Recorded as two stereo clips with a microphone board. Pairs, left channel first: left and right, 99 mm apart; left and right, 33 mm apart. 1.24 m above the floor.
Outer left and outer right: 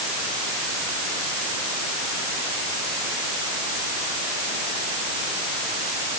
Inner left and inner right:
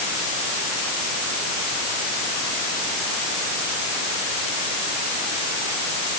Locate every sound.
Only background noise.